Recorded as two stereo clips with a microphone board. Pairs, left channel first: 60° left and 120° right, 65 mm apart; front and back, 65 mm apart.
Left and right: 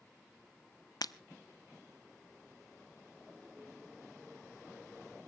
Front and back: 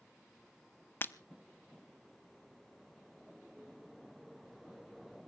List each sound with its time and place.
1.0 s breaking glass: 55° left, 0.6 m